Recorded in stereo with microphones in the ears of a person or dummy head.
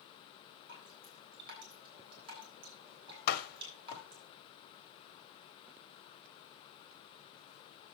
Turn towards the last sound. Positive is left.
turn(degrees=60)  # may be behind; listen again after turning